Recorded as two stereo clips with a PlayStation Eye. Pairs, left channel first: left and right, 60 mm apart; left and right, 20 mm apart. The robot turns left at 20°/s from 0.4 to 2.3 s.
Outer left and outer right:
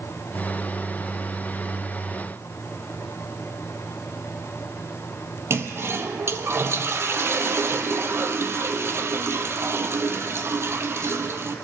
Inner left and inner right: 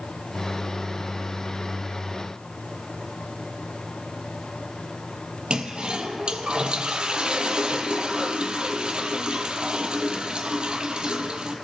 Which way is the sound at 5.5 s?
45° right (ahead or behind).